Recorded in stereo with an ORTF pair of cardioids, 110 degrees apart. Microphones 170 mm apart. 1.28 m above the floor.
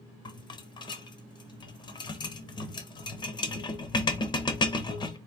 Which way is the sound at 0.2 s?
30° left.